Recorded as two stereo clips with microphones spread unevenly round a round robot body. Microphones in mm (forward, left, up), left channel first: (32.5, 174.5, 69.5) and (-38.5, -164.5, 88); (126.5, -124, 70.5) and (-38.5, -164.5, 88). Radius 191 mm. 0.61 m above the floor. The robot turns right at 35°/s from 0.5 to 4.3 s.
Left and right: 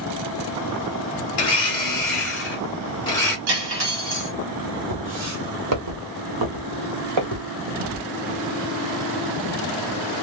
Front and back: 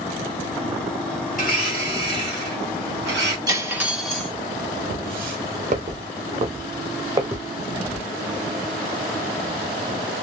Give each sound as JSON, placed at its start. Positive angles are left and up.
{"t": 1.3, "sound": "a blender", "azimuth_deg": 95, "distance_m": 1.3}
{"t": 3.5, "sound": "cutlery clinking", "azimuth_deg": -95, "distance_m": 1.9}
{"t": 4.9, "sound": "footsteps", "azimuth_deg": -155, "distance_m": 1.5}